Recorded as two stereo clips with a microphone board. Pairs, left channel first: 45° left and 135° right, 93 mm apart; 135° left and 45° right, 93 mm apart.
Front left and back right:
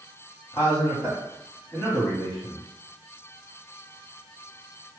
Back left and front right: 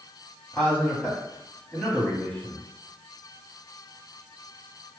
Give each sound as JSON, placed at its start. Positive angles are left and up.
{"t": 0.5, "sound": "a man speaking", "azimuth_deg": 75, "distance_m": 1.4}